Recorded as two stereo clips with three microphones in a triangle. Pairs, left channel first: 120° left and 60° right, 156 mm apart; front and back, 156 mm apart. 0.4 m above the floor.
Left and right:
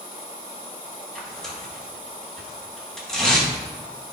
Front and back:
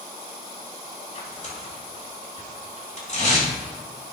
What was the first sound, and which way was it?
Tearing paper, 35° left.